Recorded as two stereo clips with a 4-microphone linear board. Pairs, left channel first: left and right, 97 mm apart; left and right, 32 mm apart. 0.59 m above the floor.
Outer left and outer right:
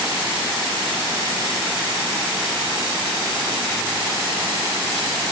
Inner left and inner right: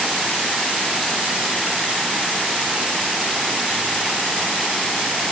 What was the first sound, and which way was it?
Only background noise.